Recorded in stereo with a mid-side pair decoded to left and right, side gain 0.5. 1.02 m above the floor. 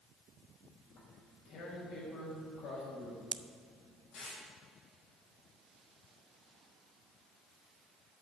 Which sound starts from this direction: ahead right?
A pop, at 3.3 s.